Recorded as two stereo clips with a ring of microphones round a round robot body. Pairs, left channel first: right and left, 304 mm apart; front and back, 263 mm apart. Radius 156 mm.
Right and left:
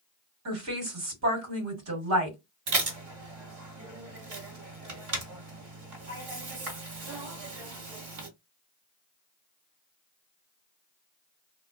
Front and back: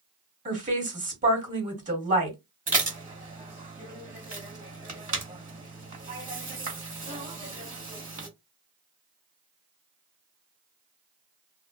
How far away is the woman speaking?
About 1.7 m.